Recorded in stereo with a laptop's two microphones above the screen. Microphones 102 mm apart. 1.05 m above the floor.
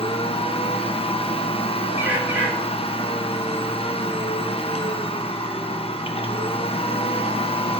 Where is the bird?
20° right (ahead or behind), 1.5 m.